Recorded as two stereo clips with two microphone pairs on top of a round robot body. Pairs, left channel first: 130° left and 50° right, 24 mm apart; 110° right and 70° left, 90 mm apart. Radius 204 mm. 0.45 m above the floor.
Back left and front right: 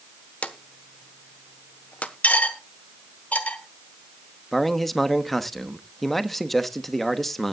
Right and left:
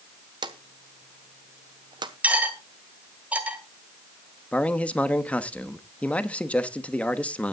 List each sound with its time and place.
0.4 s a drawer: 105° left, 1.3 m
2.2 s cutlery clinking: 145° left, 1.9 m
4.5 s a man speaking: 155° right, 1.3 m